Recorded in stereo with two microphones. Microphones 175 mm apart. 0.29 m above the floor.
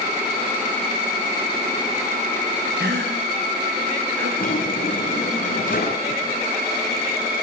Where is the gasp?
85° right, 6.5 m.